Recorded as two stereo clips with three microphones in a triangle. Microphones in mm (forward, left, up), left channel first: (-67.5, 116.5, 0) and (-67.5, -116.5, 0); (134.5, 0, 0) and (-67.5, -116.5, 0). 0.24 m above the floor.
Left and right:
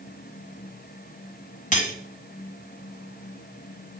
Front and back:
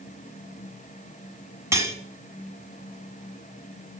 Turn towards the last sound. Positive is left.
turn(degrees=135)